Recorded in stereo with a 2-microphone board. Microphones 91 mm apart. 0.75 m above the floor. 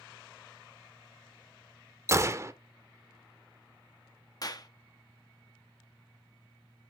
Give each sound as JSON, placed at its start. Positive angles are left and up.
{"t": 2.1, "sound": "a gunshot", "side_deg": -30, "distance_m": 0.6}
{"t": 4.4, "sound": "a clap", "side_deg": 45, "distance_m": 1.0}